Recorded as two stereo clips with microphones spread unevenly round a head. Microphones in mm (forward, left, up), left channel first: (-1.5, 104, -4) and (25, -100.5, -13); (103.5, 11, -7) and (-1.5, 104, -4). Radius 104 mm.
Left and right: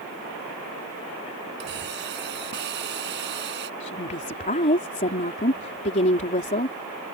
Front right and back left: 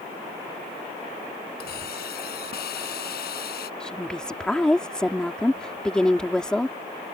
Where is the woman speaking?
45° left.